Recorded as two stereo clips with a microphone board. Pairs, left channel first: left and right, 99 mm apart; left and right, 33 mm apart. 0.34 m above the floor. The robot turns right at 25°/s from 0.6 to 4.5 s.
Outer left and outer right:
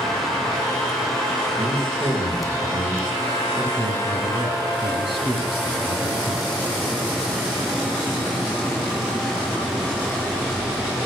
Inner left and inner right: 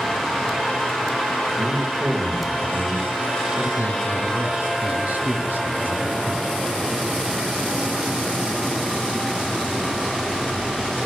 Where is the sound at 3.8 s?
50° right (ahead or behind), 3 m; by 6.5 s 65° right (ahead or behind), 3 m.